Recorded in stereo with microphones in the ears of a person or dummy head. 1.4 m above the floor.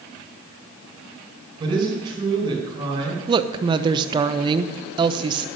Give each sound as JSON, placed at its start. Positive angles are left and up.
{"t": 1.6, "sound": "a man speaking", "side_deg": -25, "distance_m": 5.0}
{"t": 3.3, "sound": "a woman speaking", "side_deg": -25, "distance_m": 0.7}